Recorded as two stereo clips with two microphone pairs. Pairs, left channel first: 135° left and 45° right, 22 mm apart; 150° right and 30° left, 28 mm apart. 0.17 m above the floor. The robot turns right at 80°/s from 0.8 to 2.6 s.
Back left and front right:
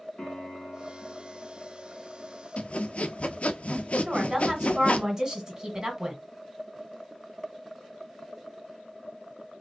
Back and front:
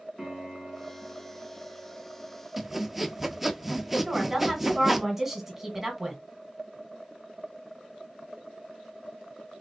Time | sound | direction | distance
0.2 | a piano | 125° left | 2 m
2.6 | sawing | 110° left | 0.5 m
4.0 | a woman speaking | 40° right | 1.5 m